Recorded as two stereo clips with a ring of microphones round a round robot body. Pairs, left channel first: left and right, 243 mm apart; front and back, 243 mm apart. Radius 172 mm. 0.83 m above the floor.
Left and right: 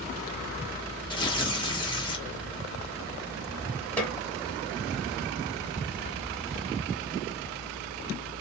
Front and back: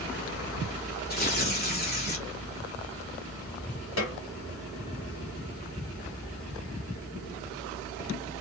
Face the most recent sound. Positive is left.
turn(degrees=5)